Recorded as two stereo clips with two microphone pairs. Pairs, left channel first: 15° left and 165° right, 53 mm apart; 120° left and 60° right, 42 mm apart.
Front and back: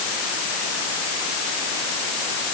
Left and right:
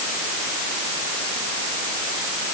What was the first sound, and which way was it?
Only background noise.